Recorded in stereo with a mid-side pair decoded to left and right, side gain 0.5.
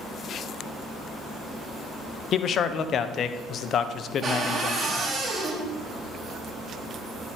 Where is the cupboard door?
35° right, 3.5 m.